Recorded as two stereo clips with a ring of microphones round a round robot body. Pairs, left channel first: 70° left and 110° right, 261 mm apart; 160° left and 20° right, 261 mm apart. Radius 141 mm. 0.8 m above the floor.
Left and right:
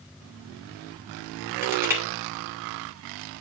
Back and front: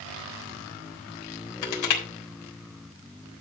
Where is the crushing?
165° left, 3.5 m.